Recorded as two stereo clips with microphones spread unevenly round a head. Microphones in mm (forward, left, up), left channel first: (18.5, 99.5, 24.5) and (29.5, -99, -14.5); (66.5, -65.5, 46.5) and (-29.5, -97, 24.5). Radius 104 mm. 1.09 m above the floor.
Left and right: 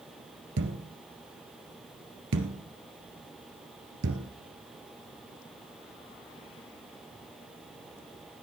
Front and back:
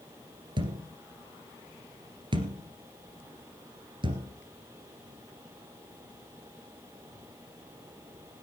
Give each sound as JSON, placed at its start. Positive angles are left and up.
{"t": 0.6, "sound": "a thud", "azimuth_deg": -120, "distance_m": 1.7}